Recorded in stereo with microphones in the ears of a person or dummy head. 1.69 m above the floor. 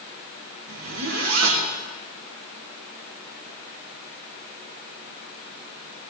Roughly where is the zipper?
Right.